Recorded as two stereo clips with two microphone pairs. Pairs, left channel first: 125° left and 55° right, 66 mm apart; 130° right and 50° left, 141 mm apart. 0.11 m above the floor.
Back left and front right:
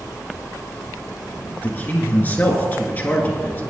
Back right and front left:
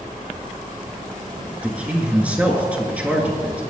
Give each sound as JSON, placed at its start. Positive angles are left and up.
{"t": 1.6, "sound": "a man speaking", "azimuth_deg": 120, "distance_m": 1.7}